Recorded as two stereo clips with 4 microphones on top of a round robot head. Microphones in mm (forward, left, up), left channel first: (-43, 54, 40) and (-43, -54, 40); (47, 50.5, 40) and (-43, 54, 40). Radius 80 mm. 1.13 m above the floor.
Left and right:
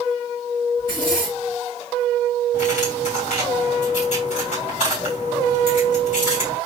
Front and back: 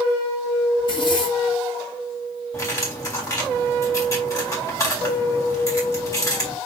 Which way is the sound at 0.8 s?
30° left.